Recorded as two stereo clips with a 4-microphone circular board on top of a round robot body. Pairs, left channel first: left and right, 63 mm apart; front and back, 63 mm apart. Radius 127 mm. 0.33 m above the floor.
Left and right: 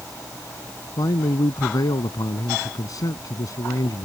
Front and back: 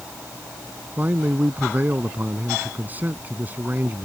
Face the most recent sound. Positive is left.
turn(degrees=120)